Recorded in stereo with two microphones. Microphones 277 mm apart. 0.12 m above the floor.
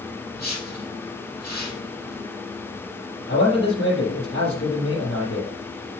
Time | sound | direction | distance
0.3 | a whoosh | 70° left (ahead or behind) | 3 m
3.3 | a man speaking | 55° left (ahead or behind) | 3 m